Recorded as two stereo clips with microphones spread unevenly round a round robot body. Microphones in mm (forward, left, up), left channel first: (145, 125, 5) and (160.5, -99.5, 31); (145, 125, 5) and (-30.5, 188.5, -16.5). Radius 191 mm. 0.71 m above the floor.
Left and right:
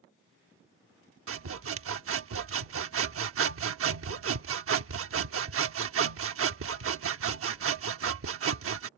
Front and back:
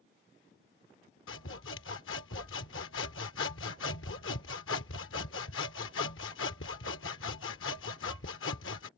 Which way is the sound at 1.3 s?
60° right.